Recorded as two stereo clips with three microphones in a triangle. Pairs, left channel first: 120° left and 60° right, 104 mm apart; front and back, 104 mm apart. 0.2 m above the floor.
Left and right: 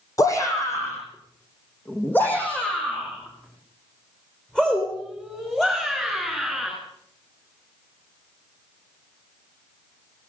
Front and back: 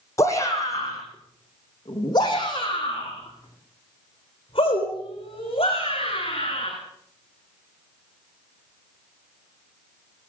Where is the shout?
60° left, 7 m; by 6.7 s 30° left, 13.5 m.